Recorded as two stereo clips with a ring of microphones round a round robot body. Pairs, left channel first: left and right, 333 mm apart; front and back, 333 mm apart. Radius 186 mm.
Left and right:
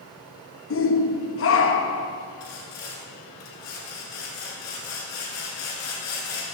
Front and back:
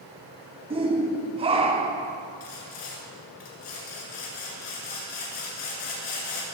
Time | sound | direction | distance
0.7 | a shout | 115° left | 0.9 m
2.4 | sawing | 40° left | 2 m